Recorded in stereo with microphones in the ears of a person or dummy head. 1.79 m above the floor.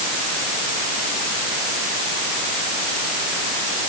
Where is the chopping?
No chopping in this recording.